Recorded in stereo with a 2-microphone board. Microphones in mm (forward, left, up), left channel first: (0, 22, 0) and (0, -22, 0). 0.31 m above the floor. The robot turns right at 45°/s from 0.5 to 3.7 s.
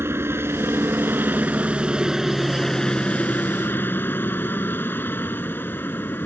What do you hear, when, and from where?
0.0 s a helicopter: 85° right; by 6.3 s 55° left